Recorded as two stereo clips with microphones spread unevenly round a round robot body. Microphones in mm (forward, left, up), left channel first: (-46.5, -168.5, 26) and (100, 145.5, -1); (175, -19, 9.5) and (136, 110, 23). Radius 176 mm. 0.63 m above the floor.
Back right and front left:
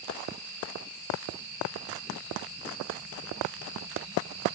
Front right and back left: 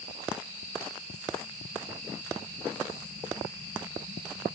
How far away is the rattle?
I don't hear a rattle.